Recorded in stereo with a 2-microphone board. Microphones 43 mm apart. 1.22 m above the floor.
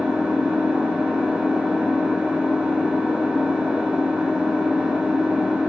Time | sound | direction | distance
0.0 | an engine running | 35° right (ahead or behind) | 2.0 m